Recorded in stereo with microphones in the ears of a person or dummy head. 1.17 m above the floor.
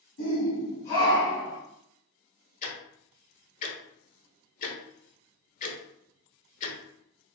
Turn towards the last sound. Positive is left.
turn(degrees=40)  # may be behind; listen again after turning